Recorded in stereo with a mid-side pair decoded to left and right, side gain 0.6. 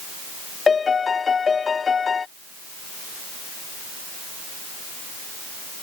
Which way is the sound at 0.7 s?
30° left.